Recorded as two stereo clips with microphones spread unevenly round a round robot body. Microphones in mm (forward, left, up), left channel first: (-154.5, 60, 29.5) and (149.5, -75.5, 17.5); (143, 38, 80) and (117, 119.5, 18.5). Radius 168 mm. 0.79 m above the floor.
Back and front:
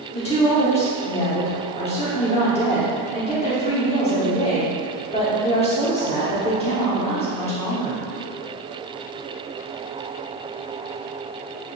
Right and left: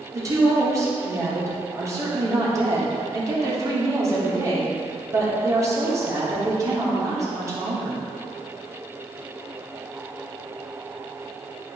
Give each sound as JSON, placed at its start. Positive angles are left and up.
{"t": 0.1, "sound": "a woman speaking", "azimuth_deg": 85, "distance_m": 2.5}